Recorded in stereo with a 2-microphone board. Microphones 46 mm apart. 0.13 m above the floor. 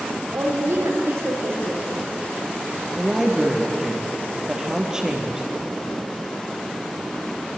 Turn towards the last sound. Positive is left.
turn(degrees=-15)  # may be behind; listen again after turning